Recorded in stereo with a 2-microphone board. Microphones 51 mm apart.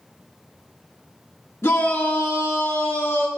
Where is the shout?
60° left (ahead or behind), 1.6 m.